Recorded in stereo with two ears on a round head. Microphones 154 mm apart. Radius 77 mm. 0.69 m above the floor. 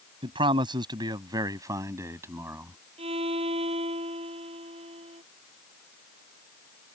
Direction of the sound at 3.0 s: 35° right (ahead or behind).